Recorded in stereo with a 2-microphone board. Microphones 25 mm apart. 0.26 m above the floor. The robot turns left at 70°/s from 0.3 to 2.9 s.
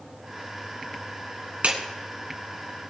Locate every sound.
1.6 s a clap: 65° right (ahead or behind), 2.5 m